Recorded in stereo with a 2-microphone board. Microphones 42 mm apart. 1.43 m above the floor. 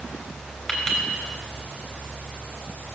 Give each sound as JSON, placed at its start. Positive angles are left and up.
{"t": 0.7, "sound": "a clink", "side_deg": 10, "distance_m": 3.0}